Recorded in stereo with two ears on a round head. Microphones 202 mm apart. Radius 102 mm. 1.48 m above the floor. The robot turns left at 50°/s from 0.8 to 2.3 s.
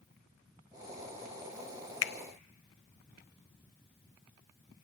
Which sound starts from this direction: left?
A finger snap, at 2.0 s.